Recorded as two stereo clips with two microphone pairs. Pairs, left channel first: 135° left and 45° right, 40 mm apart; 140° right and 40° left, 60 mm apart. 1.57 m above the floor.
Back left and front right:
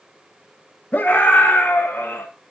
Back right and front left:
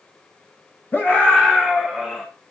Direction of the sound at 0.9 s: 165° left.